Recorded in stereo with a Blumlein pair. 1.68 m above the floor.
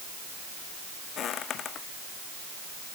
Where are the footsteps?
30° left.